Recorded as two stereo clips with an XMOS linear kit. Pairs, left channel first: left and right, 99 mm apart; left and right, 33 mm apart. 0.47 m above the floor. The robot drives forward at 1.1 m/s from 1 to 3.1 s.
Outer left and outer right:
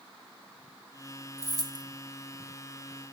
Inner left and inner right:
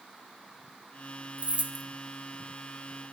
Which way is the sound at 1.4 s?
35° right (ahead or behind).